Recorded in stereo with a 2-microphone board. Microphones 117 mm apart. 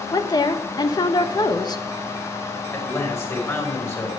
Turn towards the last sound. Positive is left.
turn(degrees=20)  # may be behind; listen again after turning